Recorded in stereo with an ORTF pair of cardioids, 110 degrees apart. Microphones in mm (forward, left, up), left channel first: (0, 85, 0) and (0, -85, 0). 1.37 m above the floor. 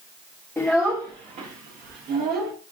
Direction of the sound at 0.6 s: 10° left.